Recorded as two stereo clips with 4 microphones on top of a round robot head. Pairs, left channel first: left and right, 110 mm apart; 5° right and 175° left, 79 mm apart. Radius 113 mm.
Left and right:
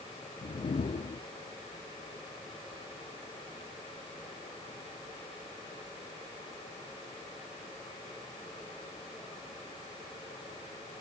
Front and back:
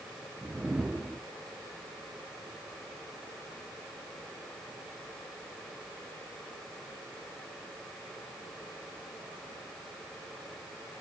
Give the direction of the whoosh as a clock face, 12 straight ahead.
9 o'clock.